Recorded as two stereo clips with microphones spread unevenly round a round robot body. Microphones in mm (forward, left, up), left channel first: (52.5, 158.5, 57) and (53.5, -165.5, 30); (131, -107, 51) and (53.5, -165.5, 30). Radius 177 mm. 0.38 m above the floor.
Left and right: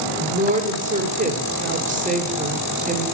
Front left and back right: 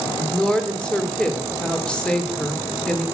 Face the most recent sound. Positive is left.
turn(degrees=-55)